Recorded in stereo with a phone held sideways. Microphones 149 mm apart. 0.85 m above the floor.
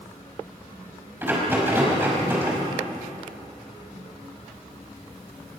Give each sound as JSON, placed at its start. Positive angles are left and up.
{"t": 1.2, "sound": "a rattle", "side_deg": -15, "distance_m": 5.0}